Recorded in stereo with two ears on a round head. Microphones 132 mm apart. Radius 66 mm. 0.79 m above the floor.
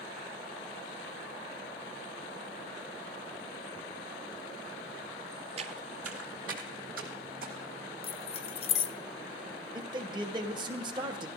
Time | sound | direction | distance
5.6 | footsteps | 40° right (ahead or behind) | 0.9 m
8.0 | keys jangling | 40° left (ahead or behind) | 0.6 m
9.8 | a man speaking | 30° right (ahead or behind) | 1.2 m